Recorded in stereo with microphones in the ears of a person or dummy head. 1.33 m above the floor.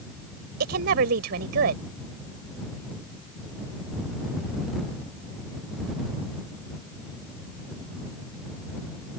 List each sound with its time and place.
0.6 s a woman speaking: 65° right (ahead or behind)